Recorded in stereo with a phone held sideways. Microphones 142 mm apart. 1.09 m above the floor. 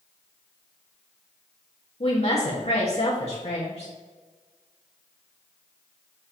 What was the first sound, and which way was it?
A woman speaking, 50° left (ahead or behind).